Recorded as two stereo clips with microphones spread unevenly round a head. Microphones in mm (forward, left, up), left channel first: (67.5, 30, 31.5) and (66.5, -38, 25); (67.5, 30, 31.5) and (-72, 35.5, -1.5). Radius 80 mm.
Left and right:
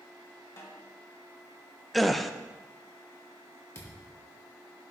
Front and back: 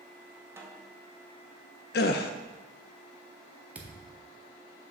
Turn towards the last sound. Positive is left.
turn(degrees=85)